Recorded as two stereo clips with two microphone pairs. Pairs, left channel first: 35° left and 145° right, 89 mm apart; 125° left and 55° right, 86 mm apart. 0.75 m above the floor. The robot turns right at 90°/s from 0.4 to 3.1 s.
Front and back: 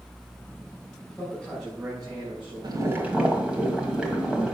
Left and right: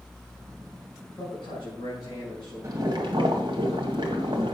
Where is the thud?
No thud in this recording.